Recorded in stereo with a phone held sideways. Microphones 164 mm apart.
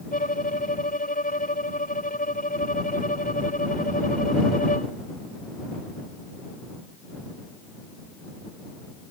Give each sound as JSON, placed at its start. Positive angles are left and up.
{"t": 0.1, "sound": "a violin", "side_deg": 55}